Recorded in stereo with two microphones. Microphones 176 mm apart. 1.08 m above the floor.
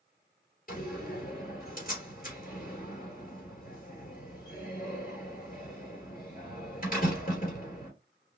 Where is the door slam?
50° left (ahead or behind), 3 m.